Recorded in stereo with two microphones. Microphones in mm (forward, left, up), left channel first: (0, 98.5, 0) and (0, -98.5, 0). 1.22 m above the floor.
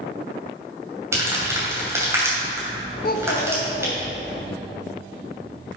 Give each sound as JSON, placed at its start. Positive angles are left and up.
{"t": 1.1, "sound": "crumpling", "side_deg": -15, "distance_m": 3.0}
{"t": 3.0, "sound": "a child speaking", "side_deg": 50, "distance_m": 0.6}